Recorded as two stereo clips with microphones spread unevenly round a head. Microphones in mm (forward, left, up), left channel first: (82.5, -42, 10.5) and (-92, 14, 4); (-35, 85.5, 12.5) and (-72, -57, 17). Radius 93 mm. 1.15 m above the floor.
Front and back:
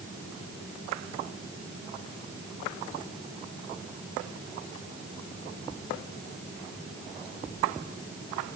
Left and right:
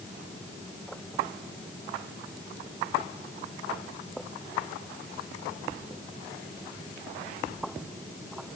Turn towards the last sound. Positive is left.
No sound to turn to.